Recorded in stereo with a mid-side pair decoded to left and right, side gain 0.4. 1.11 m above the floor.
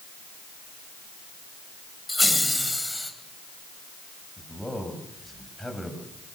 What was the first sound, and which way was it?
Laughter, 10° left.